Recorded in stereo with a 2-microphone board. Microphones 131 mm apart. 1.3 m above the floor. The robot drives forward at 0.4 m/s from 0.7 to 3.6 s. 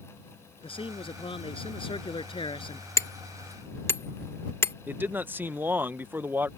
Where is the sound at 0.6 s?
40° left (ahead or behind).